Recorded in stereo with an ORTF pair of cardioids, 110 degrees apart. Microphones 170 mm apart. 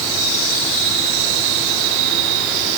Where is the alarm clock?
No alarm clock in this recording.